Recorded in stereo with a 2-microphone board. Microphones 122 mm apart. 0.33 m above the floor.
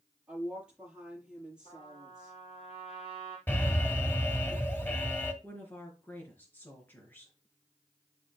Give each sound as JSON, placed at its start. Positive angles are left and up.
{"t": 0.3, "sound": "a woman speaking", "side_deg": -5, "distance_m": 7.5}
{"t": 1.6, "sound": "a trumpet", "side_deg": 60, "distance_m": 3.5}
{"t": 3.5, "sound": "an alarm", "side_deg": 15, "distance_m": 1.6}
{"t": 5.4, "sound": "a woman speaking", "side_deg": 15, "distance_m": 4.0}